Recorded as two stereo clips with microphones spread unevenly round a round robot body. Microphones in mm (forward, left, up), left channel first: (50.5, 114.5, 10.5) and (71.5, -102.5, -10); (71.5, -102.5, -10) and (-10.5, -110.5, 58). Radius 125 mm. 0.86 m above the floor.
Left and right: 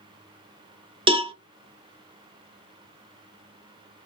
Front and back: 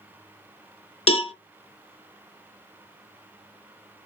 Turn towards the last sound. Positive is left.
turn(degrees=-35)